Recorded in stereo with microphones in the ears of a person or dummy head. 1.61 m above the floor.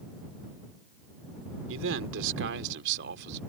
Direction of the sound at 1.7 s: 80° right.